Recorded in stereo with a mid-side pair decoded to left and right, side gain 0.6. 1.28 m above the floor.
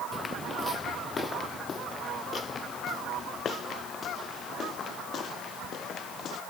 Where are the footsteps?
25° left; by 6.4 s 50° left.